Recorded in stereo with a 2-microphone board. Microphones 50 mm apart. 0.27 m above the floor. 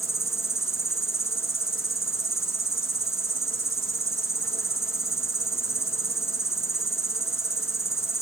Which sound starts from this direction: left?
An insect, at 0.0 s.